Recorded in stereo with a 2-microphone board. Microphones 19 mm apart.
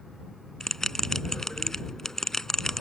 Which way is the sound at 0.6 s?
20° left (ahead or behind).